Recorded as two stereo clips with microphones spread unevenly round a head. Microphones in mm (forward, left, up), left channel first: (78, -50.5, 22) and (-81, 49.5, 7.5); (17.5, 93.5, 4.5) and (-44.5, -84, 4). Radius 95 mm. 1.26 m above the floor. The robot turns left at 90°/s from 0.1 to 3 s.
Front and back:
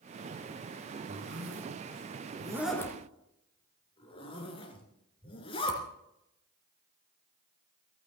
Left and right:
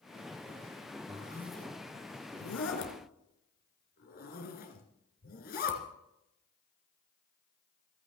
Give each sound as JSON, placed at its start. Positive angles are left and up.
{"t": 1.1, "sound": "a zipper", "azimuth_deg": -160, "distance_m": 3.0}